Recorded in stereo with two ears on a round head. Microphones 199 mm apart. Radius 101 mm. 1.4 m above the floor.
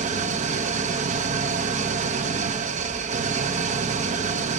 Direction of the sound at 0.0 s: 35° right (ahead or behind).